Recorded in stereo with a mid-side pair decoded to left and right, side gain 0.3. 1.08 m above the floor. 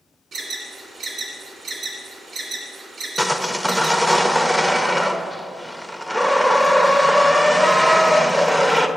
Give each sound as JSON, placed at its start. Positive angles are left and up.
{"t": 0.3, "sound": "an alarm", "azimuth_deg": -70, "distance_m": 1.8}
{"t": 3.2, "sound": "sawing", "azimuth_deg": -5, "distance_m": 0.7}